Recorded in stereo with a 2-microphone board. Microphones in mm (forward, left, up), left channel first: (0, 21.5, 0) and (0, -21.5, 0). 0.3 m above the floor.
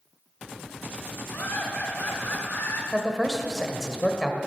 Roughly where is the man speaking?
Centre.